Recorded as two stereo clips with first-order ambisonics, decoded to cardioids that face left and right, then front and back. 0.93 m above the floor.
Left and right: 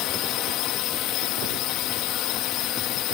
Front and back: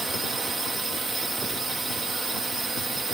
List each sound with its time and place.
0.0 s a drone: 100° left